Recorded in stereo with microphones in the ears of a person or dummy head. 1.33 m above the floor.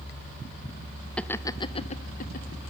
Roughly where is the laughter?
Centre.